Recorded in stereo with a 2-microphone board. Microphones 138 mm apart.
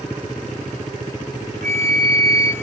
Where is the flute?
85° right, 7 m.